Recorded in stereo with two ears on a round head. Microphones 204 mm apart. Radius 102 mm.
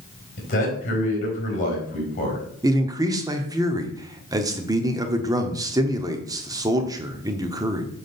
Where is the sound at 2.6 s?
15° right (ahead or behind), 0.9 m.